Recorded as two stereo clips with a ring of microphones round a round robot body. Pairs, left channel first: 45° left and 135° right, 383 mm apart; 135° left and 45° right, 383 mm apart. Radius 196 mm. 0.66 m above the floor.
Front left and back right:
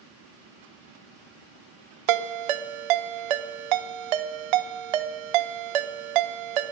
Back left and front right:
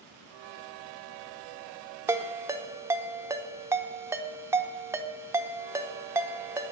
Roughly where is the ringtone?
Behind right.